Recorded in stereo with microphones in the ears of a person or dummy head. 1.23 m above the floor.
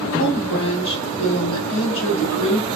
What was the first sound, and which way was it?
A woman speaking, 70° left (ahead or behind).